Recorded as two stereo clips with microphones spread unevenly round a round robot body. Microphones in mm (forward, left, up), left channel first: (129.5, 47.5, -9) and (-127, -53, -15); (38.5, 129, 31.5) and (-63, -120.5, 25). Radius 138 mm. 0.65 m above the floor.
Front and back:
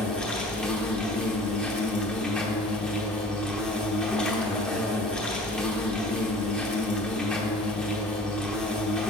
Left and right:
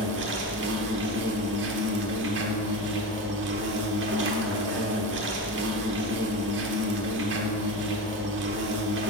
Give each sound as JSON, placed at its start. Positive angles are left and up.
{"t": 0.0, "sound": "an insect", "azimuth_deg": -65, "distance_m": 0.9}